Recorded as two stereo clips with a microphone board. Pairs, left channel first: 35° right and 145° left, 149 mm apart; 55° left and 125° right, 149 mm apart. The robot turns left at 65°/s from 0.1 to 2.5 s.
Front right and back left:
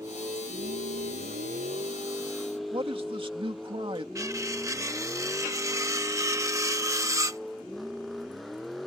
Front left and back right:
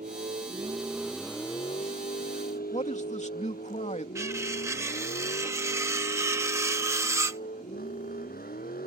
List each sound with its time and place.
0.0 s a vehicle: 145° right; by 8.9 s 55° left
2.7 s a man speaking: 95° left
4.2 s cutlery clinking: 170° right